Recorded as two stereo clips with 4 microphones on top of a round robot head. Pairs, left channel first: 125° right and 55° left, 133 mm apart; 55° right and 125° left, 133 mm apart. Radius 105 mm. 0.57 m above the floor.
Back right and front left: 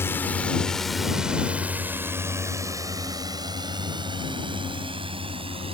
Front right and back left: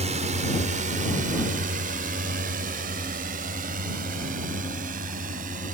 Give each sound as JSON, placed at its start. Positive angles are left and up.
{"t": 0.0, "sound": "a drone", "azimuth_deg": 160}